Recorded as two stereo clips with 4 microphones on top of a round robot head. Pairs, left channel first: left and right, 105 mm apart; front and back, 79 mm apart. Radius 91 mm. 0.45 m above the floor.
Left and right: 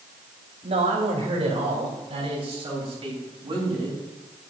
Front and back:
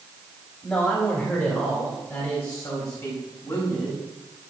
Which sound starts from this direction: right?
A man speaking, at 0.6 s.